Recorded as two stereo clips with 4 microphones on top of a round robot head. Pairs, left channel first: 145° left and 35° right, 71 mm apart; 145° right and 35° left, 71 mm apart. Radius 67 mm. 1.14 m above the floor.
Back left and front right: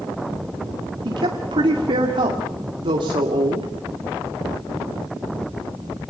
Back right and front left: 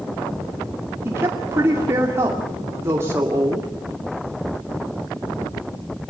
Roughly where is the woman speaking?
Ahead right.